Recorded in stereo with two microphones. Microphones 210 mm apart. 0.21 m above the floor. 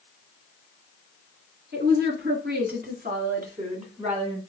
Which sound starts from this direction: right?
A woman speaking, at 1.7 s.